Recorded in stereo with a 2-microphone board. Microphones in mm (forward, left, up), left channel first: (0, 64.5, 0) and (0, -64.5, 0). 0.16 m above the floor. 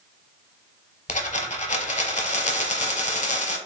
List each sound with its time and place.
1.1 s a dropped coin: 70° left (ahead or behind), 0.6 m